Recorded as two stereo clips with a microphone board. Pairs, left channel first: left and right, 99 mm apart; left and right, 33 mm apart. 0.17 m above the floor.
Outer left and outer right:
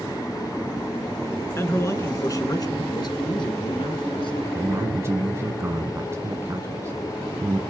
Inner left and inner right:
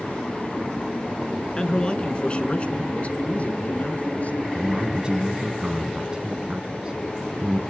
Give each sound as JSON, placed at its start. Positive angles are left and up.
{"t": 1.6, "sound": "a man speaking", "side_deg": 25, "distance_m": 1.7}
{"t": 4.5, "sound": "a man speaking", "side_deg": -25, "distance_m": 1.2}